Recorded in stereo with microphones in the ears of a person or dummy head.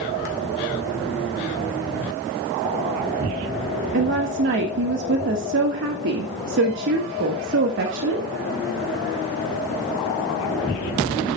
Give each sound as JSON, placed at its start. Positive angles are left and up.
{"t": 3.9, "sound": "a woman speaking", "side_deg": -55, "distance_m": 1.7}